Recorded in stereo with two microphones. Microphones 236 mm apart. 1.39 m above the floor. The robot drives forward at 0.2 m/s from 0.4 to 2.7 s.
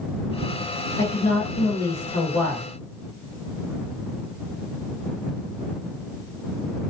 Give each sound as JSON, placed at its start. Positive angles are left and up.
{"t": 1.0, "sound": "a woman speaking", "side_deg": 75, "distance_m": 1.2}